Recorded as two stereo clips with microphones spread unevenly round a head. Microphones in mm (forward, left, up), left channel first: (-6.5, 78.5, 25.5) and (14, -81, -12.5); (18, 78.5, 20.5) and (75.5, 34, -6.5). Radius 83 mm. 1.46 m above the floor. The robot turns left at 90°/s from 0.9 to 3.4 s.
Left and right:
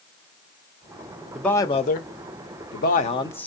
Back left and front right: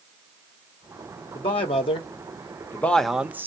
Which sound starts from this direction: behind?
A man speaking, at 1.4 s.